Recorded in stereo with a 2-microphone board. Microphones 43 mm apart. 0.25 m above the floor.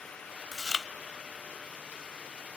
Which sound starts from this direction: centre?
Chewing, at 0.5 s.